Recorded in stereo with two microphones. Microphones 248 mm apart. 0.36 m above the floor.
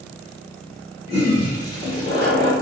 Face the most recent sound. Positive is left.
turn(degrees=35)  # may be behind; listen again after turning